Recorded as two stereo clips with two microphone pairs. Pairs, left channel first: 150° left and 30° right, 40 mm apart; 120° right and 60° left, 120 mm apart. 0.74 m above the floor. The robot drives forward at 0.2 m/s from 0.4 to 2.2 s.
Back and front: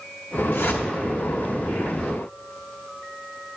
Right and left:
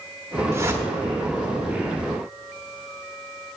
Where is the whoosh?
125° left, 0.8 m; by 0.8 s 130° left, 0.9 m.